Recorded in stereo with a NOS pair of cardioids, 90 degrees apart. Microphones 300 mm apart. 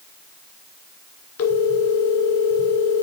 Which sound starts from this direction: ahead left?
A phone ringing, at 1.4 s.